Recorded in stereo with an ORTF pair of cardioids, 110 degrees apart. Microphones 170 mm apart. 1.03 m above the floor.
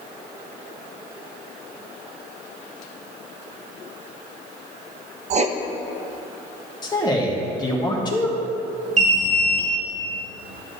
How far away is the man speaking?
About 1.4 m.